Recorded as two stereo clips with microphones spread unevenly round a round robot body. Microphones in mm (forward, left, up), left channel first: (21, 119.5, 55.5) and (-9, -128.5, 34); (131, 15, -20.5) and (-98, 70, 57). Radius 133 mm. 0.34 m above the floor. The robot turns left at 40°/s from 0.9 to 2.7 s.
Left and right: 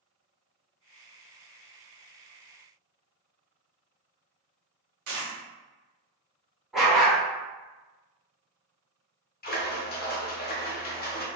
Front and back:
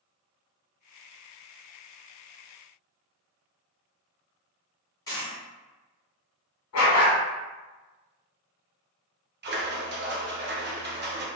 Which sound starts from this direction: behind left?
A splash, at 9.4 s.